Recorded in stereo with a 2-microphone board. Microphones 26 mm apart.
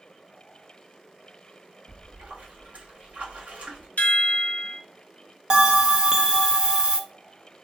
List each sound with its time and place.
1.9 s a splash: 65° right (ahead or behind), 1.3 m
4.0 s a chime: 75° left (ahead or behind), 0.6 m
5.5 s a bell: 30° right (ahead or behind), 0.5 m